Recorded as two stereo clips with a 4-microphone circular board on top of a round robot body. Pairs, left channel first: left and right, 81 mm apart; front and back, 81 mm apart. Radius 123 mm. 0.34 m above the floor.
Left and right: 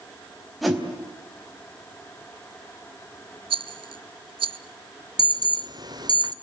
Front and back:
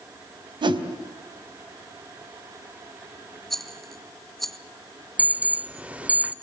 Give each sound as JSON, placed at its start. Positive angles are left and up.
{"t": 0.6, "sound": "a whoosh", "azimuth_deg": 180, "distance_m": 3.5}
{"t": 3.5, "sound": "a rattle", "azimuth_deg": -85, "distance_m": 0.5}
{"t": 5.2, "sound": "an alarm", "azimuth_deg": -110, "distance_m": 1.0}